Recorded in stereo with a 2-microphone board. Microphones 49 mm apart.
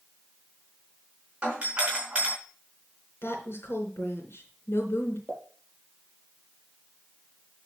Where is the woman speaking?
60° left (ahead or behind), 3.5 m.